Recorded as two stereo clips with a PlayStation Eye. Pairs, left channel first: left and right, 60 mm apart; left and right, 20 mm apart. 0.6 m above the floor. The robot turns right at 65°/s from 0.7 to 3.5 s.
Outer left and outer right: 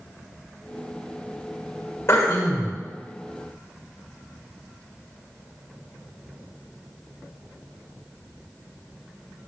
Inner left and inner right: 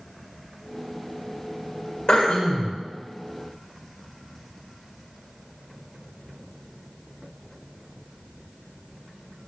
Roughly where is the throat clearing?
Ahead left.